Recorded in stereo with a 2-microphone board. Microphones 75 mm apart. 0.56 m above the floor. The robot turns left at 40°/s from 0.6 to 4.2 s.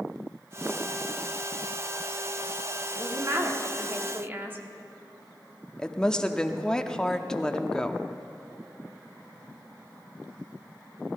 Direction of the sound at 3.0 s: 85° right.